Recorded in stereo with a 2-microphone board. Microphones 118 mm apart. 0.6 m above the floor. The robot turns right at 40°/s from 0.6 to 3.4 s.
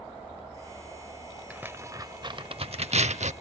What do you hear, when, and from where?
1.5 s tearing paper: 10° right (ahead or behind), 0.6 m; by 3.3 s 75° right (ahead or behind), 0.6 m